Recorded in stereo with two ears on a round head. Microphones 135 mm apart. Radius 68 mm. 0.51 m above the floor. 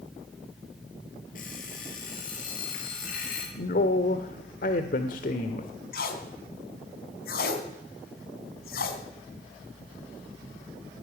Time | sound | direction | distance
1.4 | an alarm clock | 60° left (ahead or behind) | 6 m
3.5 | a man speaking | 60° left (ahead or behind) | 1.4 m
5.9 | tape being pulled | 70° left (ahead or behind) | 3 m